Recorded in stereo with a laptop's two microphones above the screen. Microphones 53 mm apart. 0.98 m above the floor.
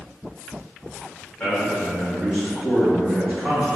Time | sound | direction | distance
1.4 | a man speaking | 20° left (ahead or behind) | 1.4 m